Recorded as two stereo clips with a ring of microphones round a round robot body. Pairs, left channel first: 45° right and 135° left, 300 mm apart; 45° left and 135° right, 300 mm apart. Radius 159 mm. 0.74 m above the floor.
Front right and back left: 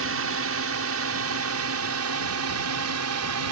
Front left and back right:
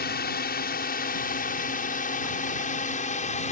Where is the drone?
100° left; by 3.5 s 110° left.